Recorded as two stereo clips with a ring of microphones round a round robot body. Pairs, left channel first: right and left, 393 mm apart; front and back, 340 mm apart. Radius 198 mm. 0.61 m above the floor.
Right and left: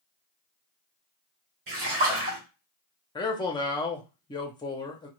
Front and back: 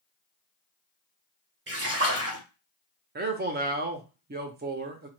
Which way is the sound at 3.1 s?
155° right.